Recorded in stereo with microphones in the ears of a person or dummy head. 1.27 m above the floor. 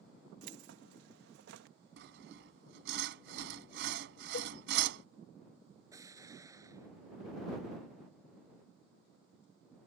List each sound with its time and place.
0.4 s keys jangling: 75° right (ahead or behind)
2.0 s sawing: 70° right (ahead or behind)
4.3 s a cowbell: 55° left (ahead or behind)
5.9 s an explosion: 15° right (ahead or behind)